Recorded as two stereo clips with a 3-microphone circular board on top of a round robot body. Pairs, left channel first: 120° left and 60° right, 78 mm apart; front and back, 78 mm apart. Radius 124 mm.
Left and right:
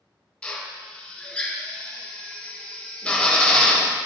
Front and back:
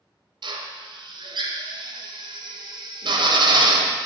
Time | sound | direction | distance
0.4 | a drill | 165° right | 0.8 m